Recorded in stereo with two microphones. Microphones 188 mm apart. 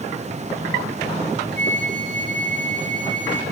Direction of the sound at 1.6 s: 80° left.